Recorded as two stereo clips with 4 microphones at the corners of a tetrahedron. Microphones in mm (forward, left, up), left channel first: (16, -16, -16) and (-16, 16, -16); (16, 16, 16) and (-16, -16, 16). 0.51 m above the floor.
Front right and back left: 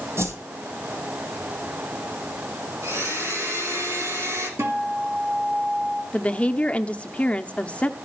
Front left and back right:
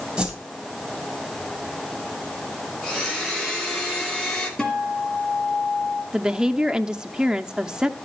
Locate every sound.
0.2 s a whoosh: 150° left, 3 m
2.8 s a blender: 130° left, 8 m
4.6 s a guitar: 120° left, 2.5 m
6.1 s a woman speaking: 80° right, 0.8 m